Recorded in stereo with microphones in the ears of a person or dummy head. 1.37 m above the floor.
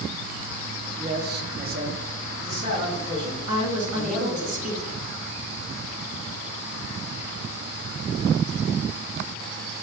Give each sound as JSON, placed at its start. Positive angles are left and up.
{"t": 1.0, "sound": "a man speaking", "side_deg": -35, "distance_m": 0.6}
{"t": 3.5, "sound": "a woman speaking", "side_deg": -45, "distance_m": 1.4}